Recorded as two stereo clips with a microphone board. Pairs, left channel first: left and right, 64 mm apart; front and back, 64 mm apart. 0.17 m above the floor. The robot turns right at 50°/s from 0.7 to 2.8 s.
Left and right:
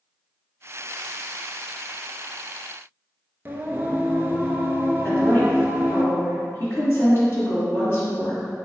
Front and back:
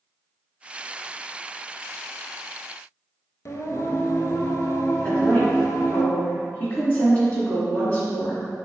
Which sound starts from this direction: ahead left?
A woman speaking, at 5.0 s.